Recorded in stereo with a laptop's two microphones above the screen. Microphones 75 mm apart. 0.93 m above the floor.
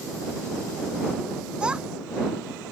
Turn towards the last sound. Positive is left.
turn(degrees=-15)  # may be behind; listen again after turning